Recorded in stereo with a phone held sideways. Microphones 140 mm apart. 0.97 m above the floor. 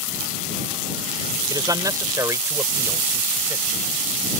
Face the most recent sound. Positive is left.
turn(degrees=-20)  # may be behind; listen again after turning